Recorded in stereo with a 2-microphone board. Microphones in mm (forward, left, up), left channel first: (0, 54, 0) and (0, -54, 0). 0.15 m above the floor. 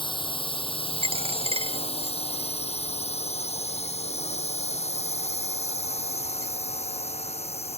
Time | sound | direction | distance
0.0 | a drone | 50° left (ahead or behind) | ?
1.0 | a dropped coin | 60° right (ahead or behind) | ?